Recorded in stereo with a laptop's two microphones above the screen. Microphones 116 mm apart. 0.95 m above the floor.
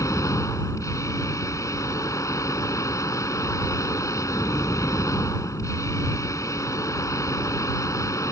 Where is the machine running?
25° left (ahead or behind).